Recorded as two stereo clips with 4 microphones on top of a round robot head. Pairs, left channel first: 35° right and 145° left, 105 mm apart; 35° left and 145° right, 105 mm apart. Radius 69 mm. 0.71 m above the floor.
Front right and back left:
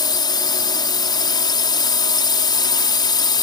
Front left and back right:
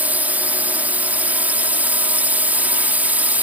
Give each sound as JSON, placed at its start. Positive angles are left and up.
{"t": 0.0, "sound": "a drone", "azimuth_deg": -75}